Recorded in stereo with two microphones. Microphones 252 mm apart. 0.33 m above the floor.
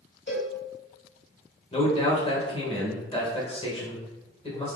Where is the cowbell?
45° left (ahead or behind), 1.0 m.